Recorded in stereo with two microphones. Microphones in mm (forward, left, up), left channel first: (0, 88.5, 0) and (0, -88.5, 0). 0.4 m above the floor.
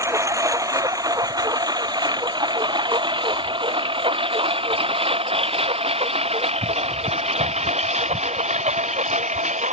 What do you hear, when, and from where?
0.0 s a lawn mower: 15° right (ahead or behind); by 9.7 s 40° right (ahead or behind)